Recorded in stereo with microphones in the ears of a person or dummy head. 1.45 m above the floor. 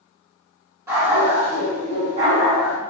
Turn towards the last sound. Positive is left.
turn(degrees=-50)  # may be behind; listen again after turning